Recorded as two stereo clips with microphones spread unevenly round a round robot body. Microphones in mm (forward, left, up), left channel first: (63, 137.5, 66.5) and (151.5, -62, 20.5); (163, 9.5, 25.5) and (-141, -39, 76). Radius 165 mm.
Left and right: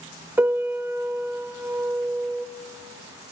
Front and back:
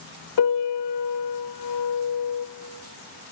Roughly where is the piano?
Ahead left.